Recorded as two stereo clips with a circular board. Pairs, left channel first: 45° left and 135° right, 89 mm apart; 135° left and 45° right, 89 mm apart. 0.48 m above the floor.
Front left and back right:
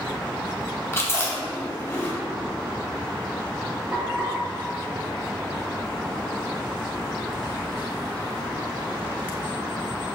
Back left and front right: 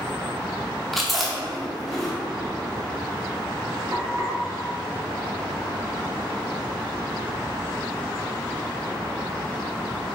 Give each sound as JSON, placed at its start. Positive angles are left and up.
{"t": 0.9, "sound": "chewing", "azimuth_deg": 50, "distance_m": 0.6}
{"t": 3.9, "sound": "frying", "azimuth_deg": -85, "distance_m": 2.0}